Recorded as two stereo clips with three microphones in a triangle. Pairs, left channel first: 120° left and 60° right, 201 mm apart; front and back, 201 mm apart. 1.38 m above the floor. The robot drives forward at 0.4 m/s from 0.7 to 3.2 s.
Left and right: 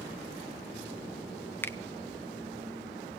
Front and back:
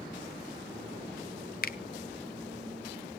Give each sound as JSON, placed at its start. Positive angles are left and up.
{"t": 1.6, "sound": "a finger snap", "azimuth_deg": 40, "distance_m": 0.5}